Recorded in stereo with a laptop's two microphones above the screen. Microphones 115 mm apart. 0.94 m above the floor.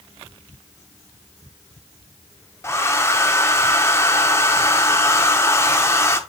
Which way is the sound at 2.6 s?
25° left (ahead or behind).